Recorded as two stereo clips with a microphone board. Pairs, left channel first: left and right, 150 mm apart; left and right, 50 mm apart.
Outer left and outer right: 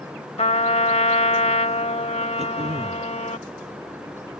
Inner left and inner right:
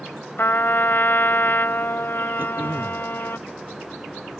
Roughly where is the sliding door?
No sliding door in this recording.